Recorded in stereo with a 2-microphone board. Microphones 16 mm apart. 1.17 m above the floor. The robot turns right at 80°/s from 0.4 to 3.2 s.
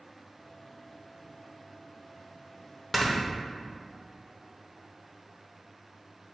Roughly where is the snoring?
Centre.